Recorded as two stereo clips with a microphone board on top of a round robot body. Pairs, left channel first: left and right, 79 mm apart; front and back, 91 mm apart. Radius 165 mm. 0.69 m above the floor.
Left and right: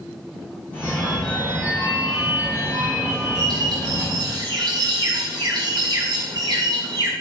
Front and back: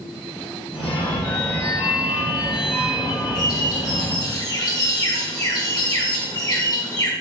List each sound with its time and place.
0.7 s a phone ringing: 20° left, 3 m
3.4 s a bird: 50° right, 1.6 m